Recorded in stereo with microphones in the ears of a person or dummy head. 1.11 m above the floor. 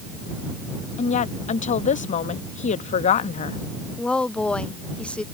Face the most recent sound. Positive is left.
turn(degrees=0)  # may be behind; listen again after turning